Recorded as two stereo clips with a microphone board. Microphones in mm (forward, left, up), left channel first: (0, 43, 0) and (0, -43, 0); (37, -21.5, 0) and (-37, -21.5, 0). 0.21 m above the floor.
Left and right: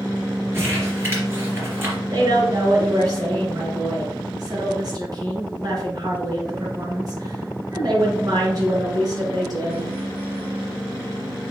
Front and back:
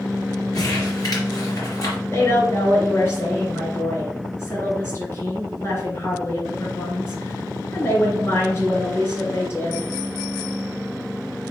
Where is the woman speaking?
50° right, 3 m.